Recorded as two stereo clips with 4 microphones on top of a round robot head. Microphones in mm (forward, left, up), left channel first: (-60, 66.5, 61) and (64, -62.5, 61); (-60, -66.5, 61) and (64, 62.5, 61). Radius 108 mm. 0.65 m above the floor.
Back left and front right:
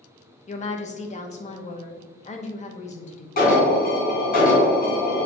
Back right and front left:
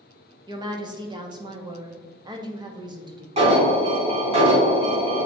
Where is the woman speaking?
100° left, 1.2 m.